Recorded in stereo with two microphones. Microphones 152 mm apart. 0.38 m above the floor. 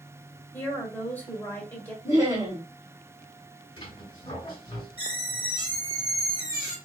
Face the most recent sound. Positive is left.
turn(degrees=35)  # may be behind; listen again after turning